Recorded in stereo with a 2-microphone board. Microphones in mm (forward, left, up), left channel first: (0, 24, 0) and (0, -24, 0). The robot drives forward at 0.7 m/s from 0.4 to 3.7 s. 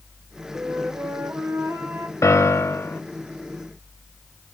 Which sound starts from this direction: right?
A flute, at 0.5 s.